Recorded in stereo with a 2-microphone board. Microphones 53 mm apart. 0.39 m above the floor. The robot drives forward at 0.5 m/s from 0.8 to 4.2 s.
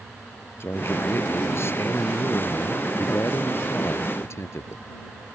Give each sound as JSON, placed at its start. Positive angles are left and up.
{"t": 0.6, "sound": "a man speaking", "side_deg": 50}